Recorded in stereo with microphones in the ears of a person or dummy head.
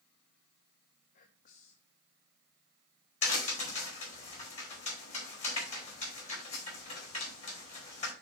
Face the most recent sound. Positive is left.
turn(degrees=40)  # may be behind; listen again after turning